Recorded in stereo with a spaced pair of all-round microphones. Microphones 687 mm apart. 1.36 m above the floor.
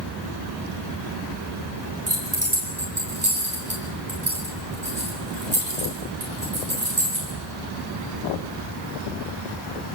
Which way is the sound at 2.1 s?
45° right (ahead or behind).